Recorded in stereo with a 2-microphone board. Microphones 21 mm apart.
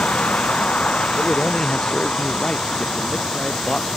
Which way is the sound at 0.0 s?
85° left.